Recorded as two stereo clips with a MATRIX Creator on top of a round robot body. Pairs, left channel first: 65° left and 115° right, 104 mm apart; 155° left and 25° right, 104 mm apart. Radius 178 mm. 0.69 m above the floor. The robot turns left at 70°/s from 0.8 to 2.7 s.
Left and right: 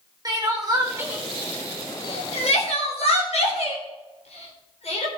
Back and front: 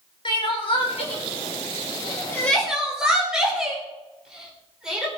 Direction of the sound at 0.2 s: 165° right.